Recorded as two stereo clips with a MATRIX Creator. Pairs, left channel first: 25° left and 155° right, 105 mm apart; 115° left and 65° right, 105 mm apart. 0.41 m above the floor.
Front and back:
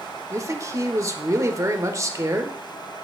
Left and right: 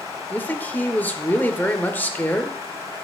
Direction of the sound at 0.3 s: 175° left.